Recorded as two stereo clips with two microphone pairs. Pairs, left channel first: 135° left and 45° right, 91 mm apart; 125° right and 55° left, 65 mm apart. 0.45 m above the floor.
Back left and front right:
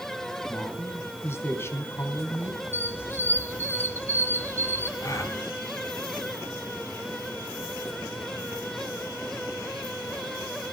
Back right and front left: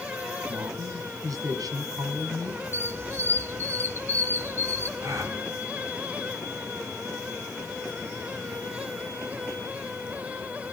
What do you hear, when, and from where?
0.5 s a man speaking: 75° left, 4 m
2.7 s a squeak: 80° left, 1.0 m
5.0 s a gasp: 85° left, 3 m